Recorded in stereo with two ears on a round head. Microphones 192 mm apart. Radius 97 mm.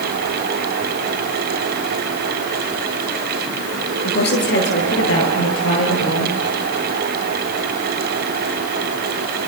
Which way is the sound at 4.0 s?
50° left (ahead or behind).